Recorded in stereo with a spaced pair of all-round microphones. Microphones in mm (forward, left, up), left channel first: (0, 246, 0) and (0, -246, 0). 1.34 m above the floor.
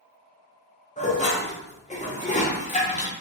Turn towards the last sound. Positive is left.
turn(degrees=15)  # may be behind; listen again after turning